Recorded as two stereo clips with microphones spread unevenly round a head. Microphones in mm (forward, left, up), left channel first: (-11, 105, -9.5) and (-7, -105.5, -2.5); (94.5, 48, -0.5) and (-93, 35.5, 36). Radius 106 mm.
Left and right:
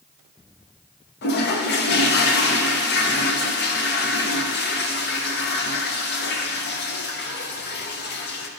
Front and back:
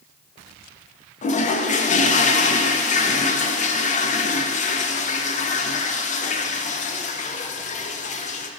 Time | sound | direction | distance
1.2 | a toilet flushing | 50° left | 0.6 m